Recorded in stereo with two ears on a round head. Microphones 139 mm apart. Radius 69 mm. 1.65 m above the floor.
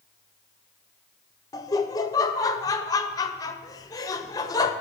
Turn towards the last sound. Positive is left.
turn(degrees=20)  # may be behind; listen again after turning